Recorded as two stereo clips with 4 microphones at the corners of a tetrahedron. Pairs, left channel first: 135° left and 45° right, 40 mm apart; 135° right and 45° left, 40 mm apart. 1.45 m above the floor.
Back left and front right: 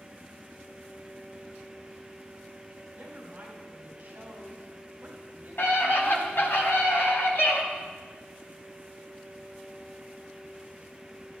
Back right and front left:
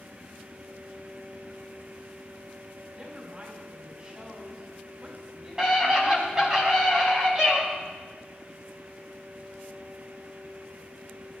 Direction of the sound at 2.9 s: 10° right.